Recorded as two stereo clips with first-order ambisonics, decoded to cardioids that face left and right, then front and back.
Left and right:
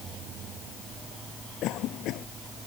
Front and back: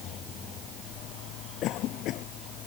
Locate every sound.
1.6 s a cough: 45° left